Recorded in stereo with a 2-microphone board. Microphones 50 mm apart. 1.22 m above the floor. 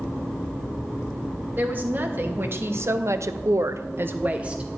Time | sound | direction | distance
1.6 | a woman speaking | 40° right (ahead or behind) | 1.5 m